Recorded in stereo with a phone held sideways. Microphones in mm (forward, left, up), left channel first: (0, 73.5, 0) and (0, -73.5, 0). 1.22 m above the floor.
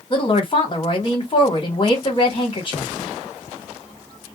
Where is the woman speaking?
40° left (ahead or behind), 1.4 m.